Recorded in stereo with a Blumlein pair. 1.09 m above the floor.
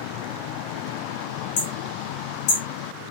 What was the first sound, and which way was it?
Hammering, 50° left.